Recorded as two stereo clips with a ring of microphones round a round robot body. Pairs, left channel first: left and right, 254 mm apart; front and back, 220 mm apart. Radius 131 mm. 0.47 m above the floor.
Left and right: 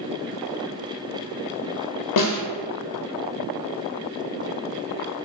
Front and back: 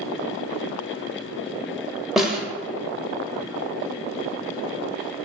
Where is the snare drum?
90° left, 0.6 m.